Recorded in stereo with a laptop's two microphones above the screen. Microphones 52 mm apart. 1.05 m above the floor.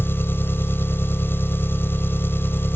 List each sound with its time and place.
0.0 s an engine running: 45° left (ahead or behind)